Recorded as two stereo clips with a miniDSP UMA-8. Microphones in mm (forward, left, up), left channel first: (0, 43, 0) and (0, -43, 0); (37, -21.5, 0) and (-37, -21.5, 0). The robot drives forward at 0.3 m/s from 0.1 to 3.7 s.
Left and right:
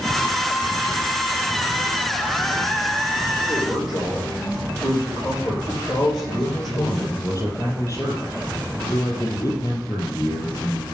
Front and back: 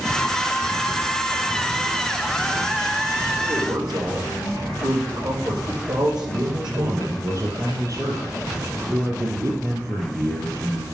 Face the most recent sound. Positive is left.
turn(degrees=145)